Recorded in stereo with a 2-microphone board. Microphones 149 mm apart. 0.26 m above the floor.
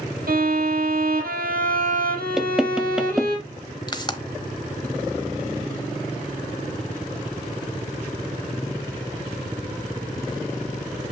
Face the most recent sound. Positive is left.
turn(degrees=30)  # may be behind; listen again after turning